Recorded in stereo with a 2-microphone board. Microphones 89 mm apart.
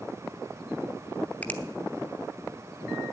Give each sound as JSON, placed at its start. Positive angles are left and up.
{"t": 1.4, "sound": "a finger snap", "side_deg": 20, "distance_m": 1.0}